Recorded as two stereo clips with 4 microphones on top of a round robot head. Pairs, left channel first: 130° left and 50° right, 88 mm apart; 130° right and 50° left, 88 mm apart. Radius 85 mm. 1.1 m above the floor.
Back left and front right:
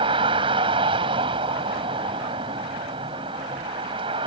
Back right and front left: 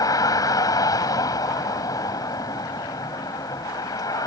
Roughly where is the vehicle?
Right.